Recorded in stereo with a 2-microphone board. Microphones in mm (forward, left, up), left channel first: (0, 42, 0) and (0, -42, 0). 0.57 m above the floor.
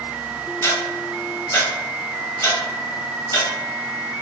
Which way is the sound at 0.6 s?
30° left (ahead or behind).